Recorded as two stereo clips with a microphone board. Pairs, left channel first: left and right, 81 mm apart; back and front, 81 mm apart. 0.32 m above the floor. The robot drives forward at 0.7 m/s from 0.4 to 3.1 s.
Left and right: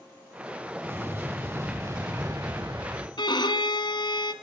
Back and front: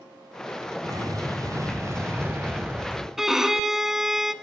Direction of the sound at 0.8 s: 30° right.